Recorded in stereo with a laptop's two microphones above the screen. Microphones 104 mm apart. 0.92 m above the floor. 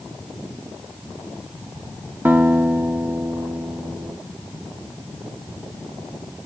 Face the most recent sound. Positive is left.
turn(degrees=-20)  # may be behind; listen again after turning